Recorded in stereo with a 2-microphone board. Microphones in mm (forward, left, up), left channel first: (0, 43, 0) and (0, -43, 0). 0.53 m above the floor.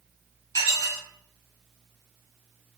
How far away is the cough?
I don't hear a cough.